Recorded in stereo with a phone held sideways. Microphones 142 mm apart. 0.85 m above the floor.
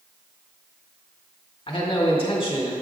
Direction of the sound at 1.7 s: 40° left (ahead or behind).